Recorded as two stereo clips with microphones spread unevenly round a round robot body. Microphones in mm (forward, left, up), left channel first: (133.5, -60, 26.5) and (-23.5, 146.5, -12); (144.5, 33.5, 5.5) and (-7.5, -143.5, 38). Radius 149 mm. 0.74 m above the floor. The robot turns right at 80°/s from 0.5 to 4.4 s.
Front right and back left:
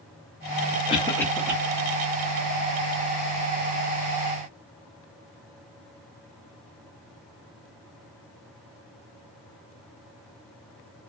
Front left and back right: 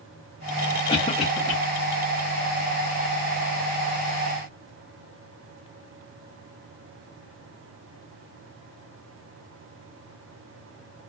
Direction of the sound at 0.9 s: 10° left.